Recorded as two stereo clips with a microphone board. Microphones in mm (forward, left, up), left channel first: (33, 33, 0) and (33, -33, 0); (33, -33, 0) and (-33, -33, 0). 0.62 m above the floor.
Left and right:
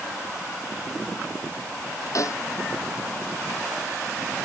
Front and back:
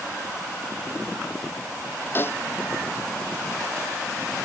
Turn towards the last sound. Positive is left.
turn(degrees=55)